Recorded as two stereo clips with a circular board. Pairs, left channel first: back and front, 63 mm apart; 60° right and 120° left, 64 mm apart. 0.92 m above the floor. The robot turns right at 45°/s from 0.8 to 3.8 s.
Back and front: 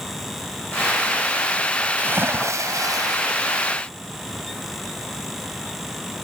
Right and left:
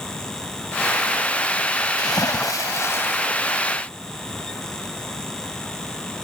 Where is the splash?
60° right; by 3.2 s 5° right.